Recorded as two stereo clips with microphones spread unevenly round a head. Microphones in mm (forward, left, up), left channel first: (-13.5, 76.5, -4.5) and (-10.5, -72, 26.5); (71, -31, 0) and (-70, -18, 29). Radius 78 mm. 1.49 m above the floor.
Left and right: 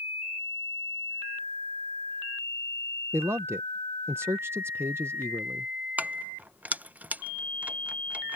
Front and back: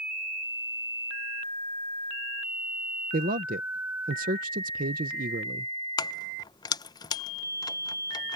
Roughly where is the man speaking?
Behind.